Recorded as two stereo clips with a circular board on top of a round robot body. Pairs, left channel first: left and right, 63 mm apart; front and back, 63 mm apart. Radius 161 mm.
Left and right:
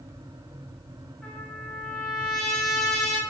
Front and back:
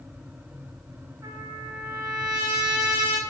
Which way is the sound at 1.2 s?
170° left.